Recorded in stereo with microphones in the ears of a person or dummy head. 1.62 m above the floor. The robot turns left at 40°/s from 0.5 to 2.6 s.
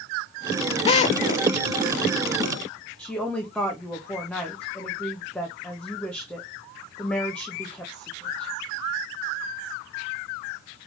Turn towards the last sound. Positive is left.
turn(degrees=10)  # may be behind; listen again after turning